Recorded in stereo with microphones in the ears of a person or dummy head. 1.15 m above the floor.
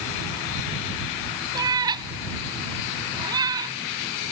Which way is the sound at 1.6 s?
25° right (ahead or behind).